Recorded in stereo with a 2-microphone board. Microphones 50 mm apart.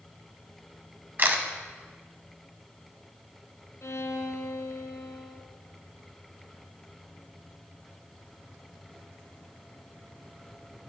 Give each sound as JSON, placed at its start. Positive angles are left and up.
{"t": 1.2, "sound": "a camera shutter", "side_deg": -45, "distance_m": 0.9}
{"t": 3.8, "sound": "a violin", "side_deg": 75, "distance_m": 1.2}